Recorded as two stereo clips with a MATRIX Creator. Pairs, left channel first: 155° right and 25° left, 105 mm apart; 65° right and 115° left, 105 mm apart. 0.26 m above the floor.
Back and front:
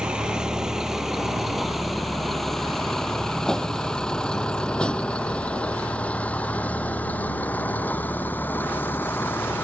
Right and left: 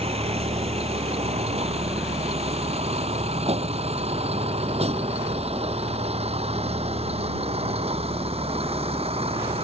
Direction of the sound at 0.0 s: 105° left.